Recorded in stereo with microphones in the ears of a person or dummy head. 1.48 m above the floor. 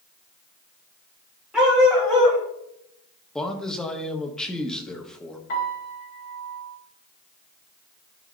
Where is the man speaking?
5° left (ahead or behind), 1.1 m.